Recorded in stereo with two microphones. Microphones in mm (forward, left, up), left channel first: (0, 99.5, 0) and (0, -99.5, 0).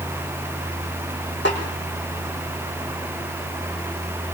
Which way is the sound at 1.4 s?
65° left (ahead or behind).